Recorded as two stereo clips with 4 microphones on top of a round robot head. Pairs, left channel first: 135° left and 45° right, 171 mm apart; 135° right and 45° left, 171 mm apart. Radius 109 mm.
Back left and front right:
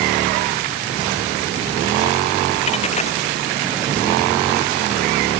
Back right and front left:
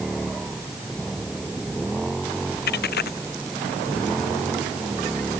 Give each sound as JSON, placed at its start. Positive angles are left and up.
{"t": 2.7, "sound": "a dropped coin", "azimuth_deg": -170}